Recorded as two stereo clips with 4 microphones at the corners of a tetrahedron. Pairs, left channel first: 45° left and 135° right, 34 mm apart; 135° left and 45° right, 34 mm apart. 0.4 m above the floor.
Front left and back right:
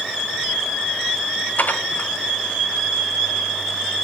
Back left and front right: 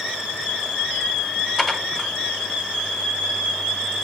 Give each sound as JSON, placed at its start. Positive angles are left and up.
{"t": 1.6, "sound": "dishes clattering", "azimuth_deg": 60, "distance_m": 1.4}